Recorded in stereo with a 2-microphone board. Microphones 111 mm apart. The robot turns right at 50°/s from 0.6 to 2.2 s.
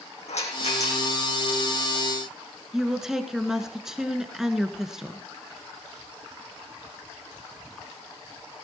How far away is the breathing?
I don't hear breathing.